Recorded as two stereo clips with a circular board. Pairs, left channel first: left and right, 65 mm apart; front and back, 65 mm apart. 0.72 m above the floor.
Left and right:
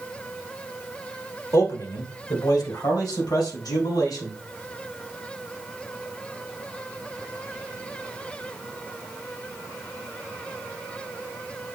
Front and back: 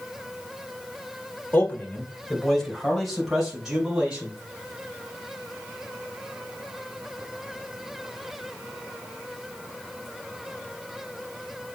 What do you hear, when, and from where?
1.5 s a man speaking: 60° left, 2 m; by 4.4 s 100° left, 5 m